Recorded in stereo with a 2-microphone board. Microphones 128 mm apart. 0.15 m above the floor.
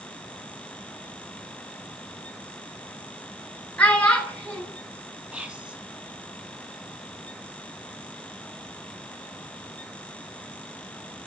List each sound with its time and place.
3.8 s a child speaking: 10° left (ahead or behind), 1.6 m
5.3 s whispering: 10° right (ahead or behind), 1.0 m